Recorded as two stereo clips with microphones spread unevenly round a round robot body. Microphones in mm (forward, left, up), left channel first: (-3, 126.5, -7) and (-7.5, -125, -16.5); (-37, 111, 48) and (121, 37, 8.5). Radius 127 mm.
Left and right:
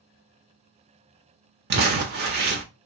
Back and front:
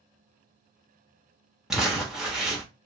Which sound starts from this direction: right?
Crumpling, at 1.7 s.